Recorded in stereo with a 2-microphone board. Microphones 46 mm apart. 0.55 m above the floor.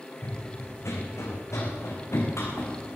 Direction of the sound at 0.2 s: 65° left (ahead or behind).